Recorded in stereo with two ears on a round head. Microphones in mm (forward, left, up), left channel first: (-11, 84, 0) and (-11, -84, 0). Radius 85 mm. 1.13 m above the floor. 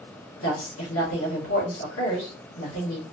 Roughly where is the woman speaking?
Left.